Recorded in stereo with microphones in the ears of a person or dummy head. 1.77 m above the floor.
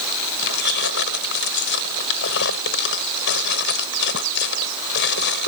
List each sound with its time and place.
0.4 s keys jangling: 60° left (ahead or behind)